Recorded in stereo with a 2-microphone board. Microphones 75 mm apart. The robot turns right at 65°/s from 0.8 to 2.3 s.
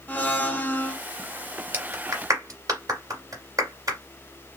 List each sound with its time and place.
0.1 s a blender: 20° left (ahead or behind), 0.9 m; by 1.0 s 15° left (ahead or behind), 0.9 m
1.7 s a clap: 25° right (ahead or behind), 2 m; by 4.0 s 50° right (ahead or behind), 2 m